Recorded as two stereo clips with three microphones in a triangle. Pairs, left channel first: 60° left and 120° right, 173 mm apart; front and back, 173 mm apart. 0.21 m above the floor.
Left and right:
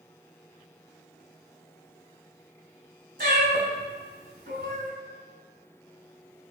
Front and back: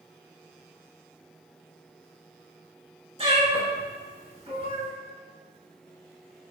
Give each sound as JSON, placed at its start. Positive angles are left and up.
{"t": 3.2, "sound": "a cat meowing", "azimuth_deg": -130, "distance_m": 1.0}